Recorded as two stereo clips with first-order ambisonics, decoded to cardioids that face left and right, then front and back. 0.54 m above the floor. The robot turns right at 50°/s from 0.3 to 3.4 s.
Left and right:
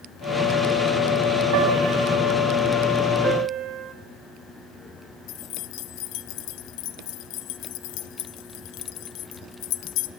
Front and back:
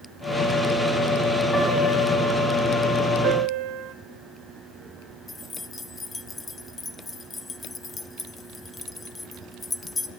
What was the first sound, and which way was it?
A piano, 90° right.